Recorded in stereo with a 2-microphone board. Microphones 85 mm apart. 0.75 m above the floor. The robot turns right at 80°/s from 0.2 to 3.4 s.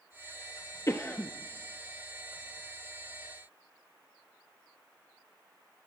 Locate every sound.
0.9 s a cough: 125° left, 0.6 m; by 1.3 s 160° left, 0.6 m